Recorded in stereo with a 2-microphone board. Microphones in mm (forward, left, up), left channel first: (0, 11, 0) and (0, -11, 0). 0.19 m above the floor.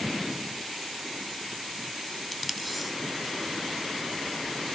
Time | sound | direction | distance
2.3 | tape being pulled | centre (ahead or behind) | 0.5 m